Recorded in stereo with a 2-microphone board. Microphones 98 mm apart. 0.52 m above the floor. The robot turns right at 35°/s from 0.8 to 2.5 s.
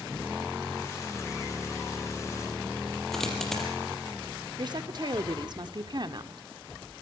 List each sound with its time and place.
3.1 s a dropped coin: 5° left (ahead or behind), 5 m
4.6 s a woman speaking: 45° right (ahead or behind), 1.1 m